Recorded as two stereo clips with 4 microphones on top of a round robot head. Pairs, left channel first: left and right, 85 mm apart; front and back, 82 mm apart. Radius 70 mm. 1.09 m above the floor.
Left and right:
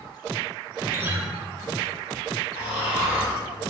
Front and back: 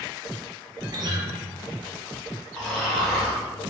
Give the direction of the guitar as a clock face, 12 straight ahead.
5 o'clock.